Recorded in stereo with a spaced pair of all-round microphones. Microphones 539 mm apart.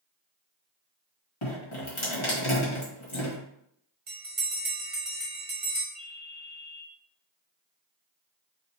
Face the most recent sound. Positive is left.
turn(degrees=60)  # may be behind; listen again after turning